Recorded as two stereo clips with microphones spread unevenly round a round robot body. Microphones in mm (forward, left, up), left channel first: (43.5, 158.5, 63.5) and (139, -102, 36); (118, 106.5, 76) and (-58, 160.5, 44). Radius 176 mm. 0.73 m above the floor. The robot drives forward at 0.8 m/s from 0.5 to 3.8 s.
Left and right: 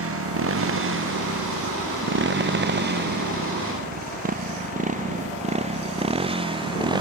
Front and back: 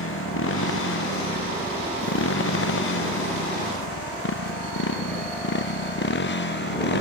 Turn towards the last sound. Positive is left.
turn(degrees=5)